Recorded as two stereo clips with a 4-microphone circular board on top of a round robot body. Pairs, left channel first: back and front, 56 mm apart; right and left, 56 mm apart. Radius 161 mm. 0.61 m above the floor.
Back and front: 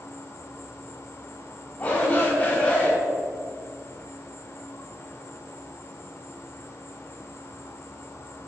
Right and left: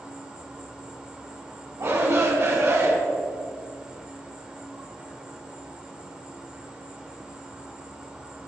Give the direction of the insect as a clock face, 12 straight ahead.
7 o'clock.